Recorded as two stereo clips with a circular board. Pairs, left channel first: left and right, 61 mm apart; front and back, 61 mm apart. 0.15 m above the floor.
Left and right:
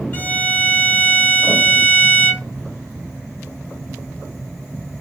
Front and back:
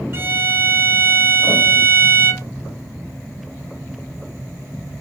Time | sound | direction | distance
0.1 | a violin | 140° left | 1.4 m